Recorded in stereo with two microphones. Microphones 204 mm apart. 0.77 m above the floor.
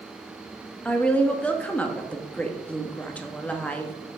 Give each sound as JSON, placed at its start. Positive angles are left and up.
{"t": 0.8, "sound": "a woman speaking", "side_deg": 5, "distance_m": 0.9}